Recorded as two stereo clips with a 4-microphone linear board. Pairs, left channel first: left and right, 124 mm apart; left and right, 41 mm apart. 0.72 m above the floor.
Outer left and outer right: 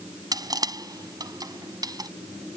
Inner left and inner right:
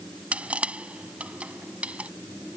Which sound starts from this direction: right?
Crushing, at 0.3 s.